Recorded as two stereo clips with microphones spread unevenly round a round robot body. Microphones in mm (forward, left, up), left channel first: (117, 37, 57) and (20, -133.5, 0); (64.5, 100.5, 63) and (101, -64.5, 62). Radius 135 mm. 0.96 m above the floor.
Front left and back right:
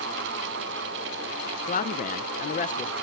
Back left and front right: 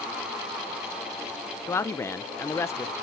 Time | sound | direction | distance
1.7 | a man speaking | 55° left | 0.5 m